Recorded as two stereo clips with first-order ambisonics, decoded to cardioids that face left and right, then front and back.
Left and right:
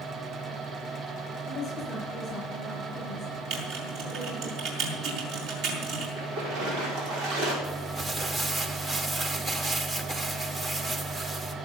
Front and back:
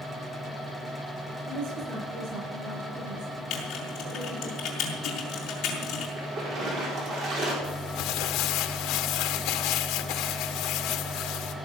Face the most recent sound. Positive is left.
turn(degrees=-20)